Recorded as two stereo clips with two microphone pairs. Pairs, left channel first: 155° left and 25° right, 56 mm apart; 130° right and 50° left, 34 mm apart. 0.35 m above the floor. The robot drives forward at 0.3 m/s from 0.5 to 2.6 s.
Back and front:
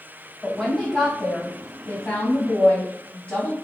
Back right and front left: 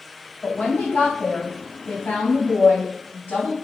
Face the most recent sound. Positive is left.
turn(degrees=-145)